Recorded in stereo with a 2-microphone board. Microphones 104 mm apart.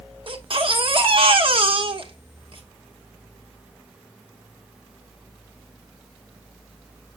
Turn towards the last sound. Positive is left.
turn(degrees=-55)  # may be behind; listen again after turning